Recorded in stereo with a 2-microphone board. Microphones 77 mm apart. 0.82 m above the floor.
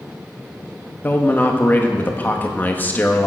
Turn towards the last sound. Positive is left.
turn(degrees=25)  # may be behind; listen again after turning